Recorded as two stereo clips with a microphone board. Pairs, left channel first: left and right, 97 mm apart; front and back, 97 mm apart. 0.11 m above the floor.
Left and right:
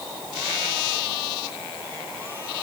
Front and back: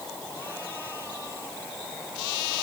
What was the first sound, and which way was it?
Only background noise.